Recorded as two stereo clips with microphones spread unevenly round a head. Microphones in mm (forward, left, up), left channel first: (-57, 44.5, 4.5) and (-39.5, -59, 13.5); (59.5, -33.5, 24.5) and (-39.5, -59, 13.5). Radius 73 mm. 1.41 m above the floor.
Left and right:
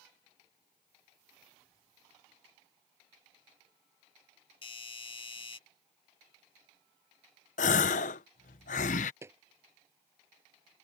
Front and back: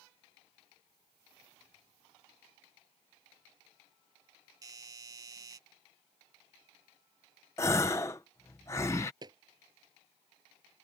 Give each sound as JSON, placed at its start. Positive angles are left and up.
{"t": 4.6, "sound": "a doorbell", "azimuth_deg": 135}
{"t": 7.6, "sound": "a gasp", "azimuth_deg": 90}
{"t": 9.2, "sound": "footsteps", "azimuth_deg": -130}